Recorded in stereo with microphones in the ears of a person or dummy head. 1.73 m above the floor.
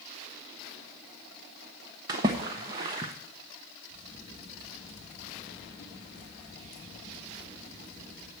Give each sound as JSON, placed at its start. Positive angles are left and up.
{"t": 2.1, "sound": "a splash", "side_deg": -15, "distance_m": 0.8}
{"t": 3.9, "sound": "a crack", "side_deg": 45, "distance_m": 3.0}